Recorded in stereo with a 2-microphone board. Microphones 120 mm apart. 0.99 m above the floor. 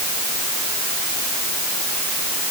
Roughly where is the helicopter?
No helicopter in this recording.